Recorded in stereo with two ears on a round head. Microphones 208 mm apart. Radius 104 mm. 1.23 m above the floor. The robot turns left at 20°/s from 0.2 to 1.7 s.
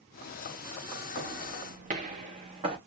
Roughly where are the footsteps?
Right.